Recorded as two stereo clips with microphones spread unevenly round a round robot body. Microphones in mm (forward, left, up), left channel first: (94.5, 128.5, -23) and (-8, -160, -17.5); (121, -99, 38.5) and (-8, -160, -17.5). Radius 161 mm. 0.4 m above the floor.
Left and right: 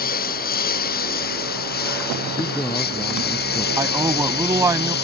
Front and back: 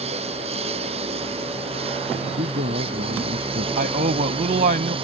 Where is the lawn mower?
135° left.